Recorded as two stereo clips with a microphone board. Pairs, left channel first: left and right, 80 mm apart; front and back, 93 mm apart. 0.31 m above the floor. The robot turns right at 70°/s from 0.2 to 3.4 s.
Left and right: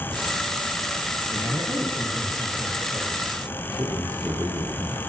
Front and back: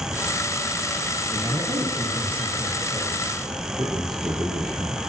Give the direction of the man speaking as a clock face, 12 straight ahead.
5 o'clock.